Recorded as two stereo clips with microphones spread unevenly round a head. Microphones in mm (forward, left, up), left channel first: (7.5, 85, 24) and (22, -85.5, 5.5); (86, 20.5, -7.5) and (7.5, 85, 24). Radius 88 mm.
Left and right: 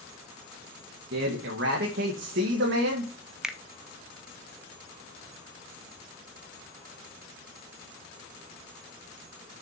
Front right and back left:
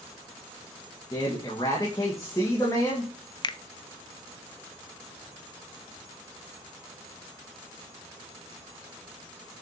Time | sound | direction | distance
1.1 | a man speaking | 105° right | 1.8 m
3.4 | a finger snap | straight ahead | 0.9 m